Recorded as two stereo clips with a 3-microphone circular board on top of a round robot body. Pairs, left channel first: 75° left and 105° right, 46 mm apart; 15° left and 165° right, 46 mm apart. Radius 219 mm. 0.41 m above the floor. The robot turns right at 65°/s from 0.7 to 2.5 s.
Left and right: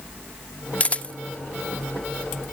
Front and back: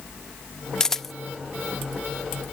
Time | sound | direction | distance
0.8 | a camera shutter | 80° left | 0.6 m